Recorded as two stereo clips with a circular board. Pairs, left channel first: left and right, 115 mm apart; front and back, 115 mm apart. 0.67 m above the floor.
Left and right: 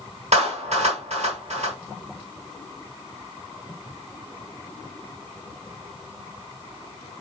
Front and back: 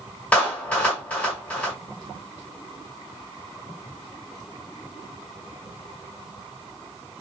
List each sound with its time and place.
0.3 s a clap: 75° right, 2 m